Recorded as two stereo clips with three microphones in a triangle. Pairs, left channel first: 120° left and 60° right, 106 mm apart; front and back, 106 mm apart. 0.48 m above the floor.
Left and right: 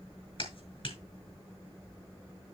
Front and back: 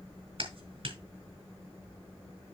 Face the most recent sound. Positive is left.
turn(degrees=150)